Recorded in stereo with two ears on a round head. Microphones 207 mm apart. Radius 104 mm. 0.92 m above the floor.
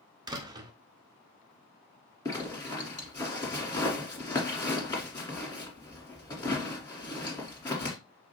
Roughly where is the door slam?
Centre.